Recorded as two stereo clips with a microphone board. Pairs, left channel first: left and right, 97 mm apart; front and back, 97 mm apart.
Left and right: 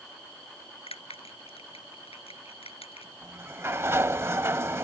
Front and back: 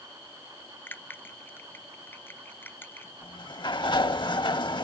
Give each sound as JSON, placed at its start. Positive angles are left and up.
{"t": 0.9, "sound": "a bell", "azimuth_deg": 70}
{"t": 3.2, "sound": "a sliding door", "azimuth_deg": -30}